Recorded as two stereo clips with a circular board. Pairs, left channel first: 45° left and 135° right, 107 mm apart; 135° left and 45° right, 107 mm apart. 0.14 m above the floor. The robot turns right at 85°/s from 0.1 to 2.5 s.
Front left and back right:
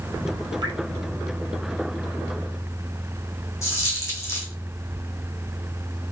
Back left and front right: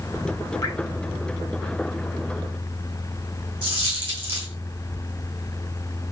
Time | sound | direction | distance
0.6 | dripping | 175° right | 2 m
3.6 | a dropped coin | 15° right | 2.5 m